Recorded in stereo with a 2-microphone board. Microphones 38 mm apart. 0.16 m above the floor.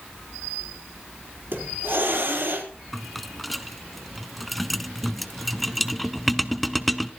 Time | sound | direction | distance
1.5 | a hiss | 70° right (ahead or behind) | 4 m
2.9 | a rattle | centre (ahead or behind) | 0.6 m